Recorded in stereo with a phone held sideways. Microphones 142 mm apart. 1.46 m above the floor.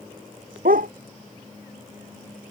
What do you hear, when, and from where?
0.7 s a dog barking: 80° right